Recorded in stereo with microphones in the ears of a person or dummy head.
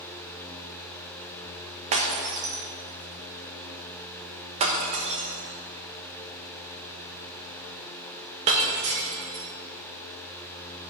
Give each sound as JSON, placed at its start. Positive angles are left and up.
{"t": 1.9, "sound": "breaking glass", "side_deg": -30, "distance_m": 0.9}